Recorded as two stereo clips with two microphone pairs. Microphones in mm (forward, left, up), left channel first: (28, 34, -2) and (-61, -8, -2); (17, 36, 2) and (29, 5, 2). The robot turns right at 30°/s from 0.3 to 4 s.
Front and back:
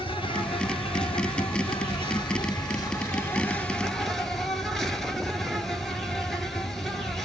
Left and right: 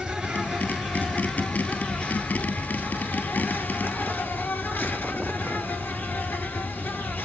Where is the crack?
No crack in this recording.